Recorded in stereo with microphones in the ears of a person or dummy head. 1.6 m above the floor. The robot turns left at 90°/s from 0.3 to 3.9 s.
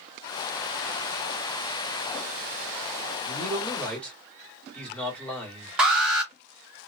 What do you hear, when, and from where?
3.2 s a man speaking: 125° right, 1.4 m; by 5.8 s 175° left, 1.4 m
5.8 s an alarm: 5° right (ahead or behind), 0.7 m